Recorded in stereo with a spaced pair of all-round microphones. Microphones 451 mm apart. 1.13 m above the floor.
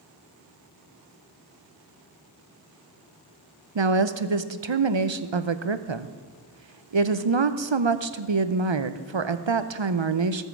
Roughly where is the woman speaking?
Right.